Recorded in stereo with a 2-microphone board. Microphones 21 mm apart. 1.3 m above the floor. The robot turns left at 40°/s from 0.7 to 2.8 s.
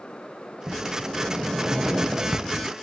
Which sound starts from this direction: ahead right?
A sliding door, at 0.7 s.